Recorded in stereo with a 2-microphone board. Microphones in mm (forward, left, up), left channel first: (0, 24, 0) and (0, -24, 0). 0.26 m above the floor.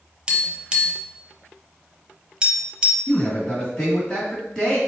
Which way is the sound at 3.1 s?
10° left (ahead or behind).